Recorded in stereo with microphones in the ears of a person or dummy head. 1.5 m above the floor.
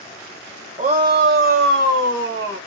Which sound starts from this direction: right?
A shout, at 0.8 s.